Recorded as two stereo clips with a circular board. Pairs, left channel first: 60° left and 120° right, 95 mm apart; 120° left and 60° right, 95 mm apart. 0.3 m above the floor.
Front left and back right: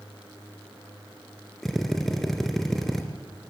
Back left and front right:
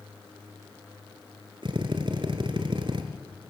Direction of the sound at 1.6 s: 25° right.